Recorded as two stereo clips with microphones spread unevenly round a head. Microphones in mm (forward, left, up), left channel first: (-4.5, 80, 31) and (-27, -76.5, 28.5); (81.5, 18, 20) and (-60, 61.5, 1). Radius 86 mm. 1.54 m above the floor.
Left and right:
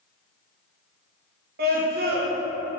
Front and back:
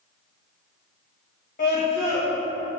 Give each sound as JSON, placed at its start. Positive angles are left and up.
{"t": 1.6, "sound": "a scream", "azimuth_deg": -60, "distance_m": 2.0}